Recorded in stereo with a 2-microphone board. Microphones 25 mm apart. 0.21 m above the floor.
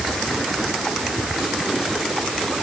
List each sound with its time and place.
Only background noise.